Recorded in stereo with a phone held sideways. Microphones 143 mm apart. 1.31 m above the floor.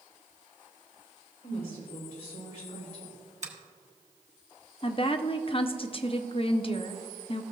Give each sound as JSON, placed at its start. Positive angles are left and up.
{"t": 1.4, "sound": "a woman speaking", "side_deg": 65, "distance_m": 3.0}
{"t": 3.4, "sound": "a finger snap", "side_deg": -55, "distance_m": 1.1}
{"t": 4.8, "sound": "a woman speaking", "side_deg": 40, "distance_m": 0.5}